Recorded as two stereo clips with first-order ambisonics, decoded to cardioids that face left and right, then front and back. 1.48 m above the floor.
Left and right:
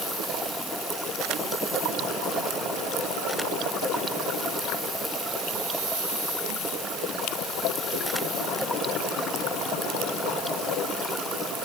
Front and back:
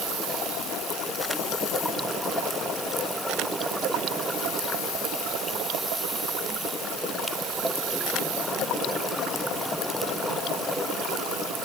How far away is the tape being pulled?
I don't hear tape being pulled.